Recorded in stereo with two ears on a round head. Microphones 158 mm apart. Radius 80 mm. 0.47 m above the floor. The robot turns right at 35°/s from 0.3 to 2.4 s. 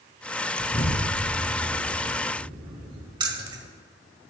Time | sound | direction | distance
0.6 | an explosion | 40° left (ahead or behind) | 4.5 m
3.2 | keys jangling | 25° right (ahead or behind) | 1.3 m